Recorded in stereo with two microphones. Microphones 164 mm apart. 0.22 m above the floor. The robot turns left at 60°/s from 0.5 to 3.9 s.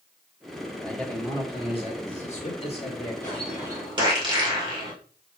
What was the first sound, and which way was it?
A man speaking, 175° left.